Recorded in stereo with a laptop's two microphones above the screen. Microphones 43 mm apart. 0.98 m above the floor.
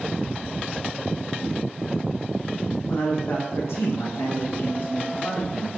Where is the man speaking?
45° left (ahead or behind), 1.0 m; by 5.7 s 30° left (ahead or behind), 1.2 m.